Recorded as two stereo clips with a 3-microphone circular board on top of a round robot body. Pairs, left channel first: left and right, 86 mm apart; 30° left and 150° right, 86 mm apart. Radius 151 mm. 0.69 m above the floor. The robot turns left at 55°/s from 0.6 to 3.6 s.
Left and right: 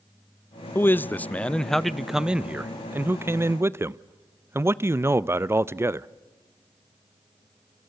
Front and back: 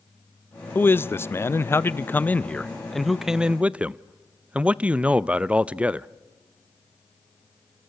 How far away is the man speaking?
About 0.7 m.